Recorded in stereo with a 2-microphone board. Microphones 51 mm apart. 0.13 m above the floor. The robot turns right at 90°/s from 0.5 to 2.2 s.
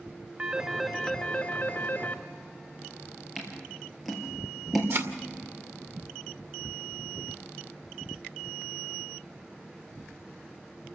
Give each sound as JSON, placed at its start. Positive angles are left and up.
{"t": 0.4, "sound": "a phone ringing", "azimuth_deg": -45, "distance_m": 0.9}
{"t": 3.4, "sound": "scissors", "side_deg": -5, "distance_m": 3.5}
{"t": 4.9, "sound": "a thud", "side_deg": -55, "distance_m": 1.9}